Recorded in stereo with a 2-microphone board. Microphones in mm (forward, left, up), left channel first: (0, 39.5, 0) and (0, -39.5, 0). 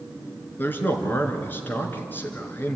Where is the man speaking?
25° left (ahead or behind), 3 m.